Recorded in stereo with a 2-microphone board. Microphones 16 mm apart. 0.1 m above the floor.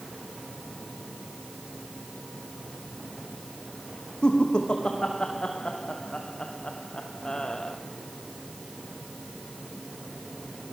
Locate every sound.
4.2 s laughter: 70° left (ahead or behind), 5.5 m; by 7.8 s 45° left (ahead or behind), 3 m